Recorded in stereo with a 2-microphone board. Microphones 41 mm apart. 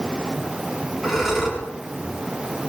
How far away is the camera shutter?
I don't hear a camera shutter.